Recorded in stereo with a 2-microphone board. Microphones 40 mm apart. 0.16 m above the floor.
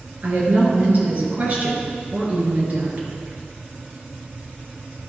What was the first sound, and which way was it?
A woman speaking, 35° right (ahead or behind).